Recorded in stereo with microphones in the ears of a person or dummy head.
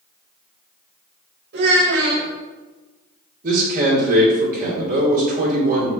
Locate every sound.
1.5 s a child speaking: 60° right (ahead or behind), 1.8 m
3.4 s a man speaking: 45° right (ahead or behind), 1.9 m